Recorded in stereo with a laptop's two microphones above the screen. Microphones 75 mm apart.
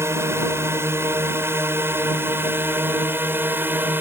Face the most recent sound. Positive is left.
turn(degrees=-25)  # may be behind; listen again after turning